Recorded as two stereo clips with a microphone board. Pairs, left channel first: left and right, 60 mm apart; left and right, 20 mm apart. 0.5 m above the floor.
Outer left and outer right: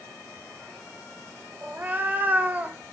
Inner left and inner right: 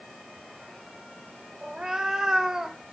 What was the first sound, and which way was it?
A cat meowing, 30° right (ahead or behind).